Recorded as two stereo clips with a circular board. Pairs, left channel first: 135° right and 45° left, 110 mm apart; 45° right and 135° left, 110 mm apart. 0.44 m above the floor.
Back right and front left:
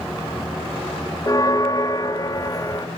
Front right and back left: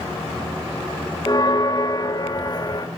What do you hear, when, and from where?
1.3 s a bell: 85° right, 1.2 m